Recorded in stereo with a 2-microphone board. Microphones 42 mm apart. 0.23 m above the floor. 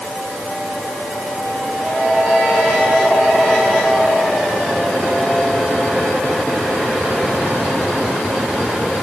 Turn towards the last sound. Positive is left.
No sound to turn to.